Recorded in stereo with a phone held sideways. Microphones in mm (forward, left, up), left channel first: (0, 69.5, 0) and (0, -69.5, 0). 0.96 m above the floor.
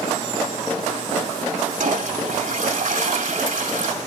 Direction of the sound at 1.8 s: 60° right (ahead or behind).